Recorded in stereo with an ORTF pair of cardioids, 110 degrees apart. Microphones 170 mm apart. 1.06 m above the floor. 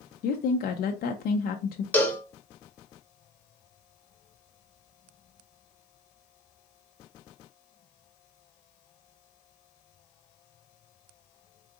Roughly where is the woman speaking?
Ahead left.